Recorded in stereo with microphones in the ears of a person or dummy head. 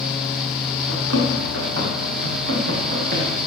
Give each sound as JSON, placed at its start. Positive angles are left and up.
{"t": 0.9, "sound": "running footsteps", "side_deg": -70, "distance_m": 5.0}